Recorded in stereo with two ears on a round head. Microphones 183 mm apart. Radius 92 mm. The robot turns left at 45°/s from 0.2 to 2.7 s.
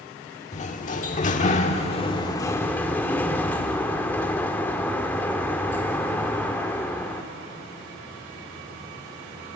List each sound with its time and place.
0.5 s a sliding door: 115° left, 1.5 m; by 7.2 s 15° left, 1.5 m